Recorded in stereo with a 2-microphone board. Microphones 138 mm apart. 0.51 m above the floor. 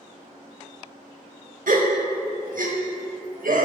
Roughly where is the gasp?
Right.